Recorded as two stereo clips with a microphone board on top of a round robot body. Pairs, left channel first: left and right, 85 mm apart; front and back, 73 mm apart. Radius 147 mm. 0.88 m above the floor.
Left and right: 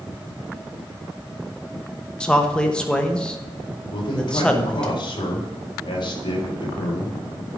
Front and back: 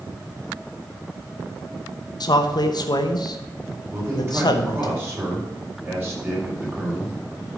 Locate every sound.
2.2 s a man speaking: 10° left, 1.1 m
3.9 s a man speaking: 120° left, 3.5 m